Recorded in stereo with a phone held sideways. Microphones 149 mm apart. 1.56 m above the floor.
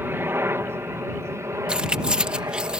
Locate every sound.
0.0 s a helicopter: 15° right (ahead or behind); by 2.8 s 20° right (ahead or behind)
1.7 s keys jangling: 5° right (ahead or behind)